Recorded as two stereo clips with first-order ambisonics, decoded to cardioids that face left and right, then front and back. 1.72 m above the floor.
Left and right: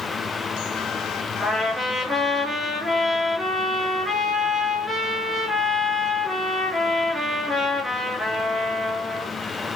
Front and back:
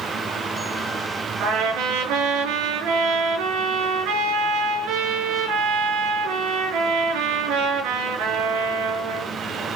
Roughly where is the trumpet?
Behind.